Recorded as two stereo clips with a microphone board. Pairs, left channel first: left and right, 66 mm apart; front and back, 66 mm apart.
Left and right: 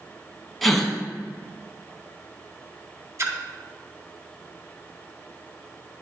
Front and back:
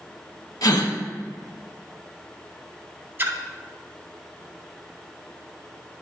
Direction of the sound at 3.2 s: 125° right.